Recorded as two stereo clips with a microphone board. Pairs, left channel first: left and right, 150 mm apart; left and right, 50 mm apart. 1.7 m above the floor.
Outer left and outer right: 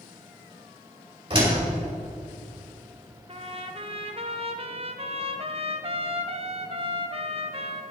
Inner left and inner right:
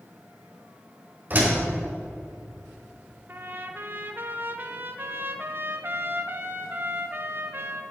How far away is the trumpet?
About 1.0 m.